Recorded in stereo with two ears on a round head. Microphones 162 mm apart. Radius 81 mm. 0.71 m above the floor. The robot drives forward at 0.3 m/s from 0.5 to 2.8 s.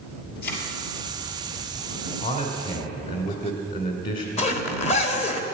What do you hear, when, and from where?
0.4 s a thud: 55° left (ahead or behind), 2.5 m; by 0.6 s 60° left (ahead or behind), 2.5 m
2.2 s a man speaking: 50° left (ahead or behind), 2 m
4.4 s a zipper: 35° left (ahead or behind), 1.3 m